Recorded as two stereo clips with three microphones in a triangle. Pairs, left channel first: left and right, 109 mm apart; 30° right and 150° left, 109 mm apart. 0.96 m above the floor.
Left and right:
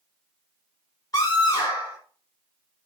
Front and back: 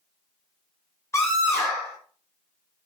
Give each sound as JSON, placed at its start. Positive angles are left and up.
{"t": 1.1, "sound": "a scream", "azimuth_deg": 35, "distance_m": 4.5}